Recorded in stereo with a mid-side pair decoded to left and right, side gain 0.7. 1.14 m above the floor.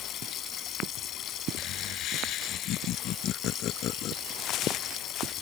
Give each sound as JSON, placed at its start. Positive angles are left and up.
{"t": 0.0, "sound": "running water", "azimuth_deg": 45}
{"t": 1.6, "sound": "laughter", "azimuth_deg": 50}
{"t": 4.3, "sound": "footsteps", "azimuth_deg": 50}